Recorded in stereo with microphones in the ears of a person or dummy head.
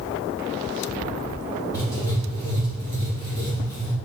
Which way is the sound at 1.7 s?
20° left (ahead or behind).